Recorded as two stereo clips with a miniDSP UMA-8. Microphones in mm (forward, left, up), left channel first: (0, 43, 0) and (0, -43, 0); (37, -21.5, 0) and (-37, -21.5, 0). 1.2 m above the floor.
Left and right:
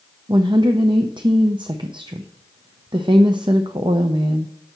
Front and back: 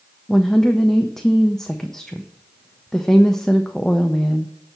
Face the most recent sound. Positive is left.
turn(degrees=-85)